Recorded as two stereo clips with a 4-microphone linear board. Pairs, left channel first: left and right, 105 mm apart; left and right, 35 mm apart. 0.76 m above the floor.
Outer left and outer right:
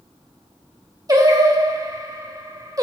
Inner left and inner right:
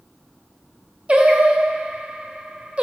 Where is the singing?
35° right (ahead or behind), 1.3 m.